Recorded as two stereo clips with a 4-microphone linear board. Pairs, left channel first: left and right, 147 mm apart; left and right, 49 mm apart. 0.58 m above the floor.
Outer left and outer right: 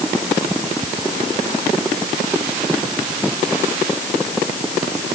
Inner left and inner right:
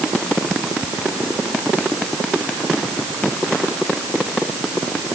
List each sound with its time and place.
Only background noise.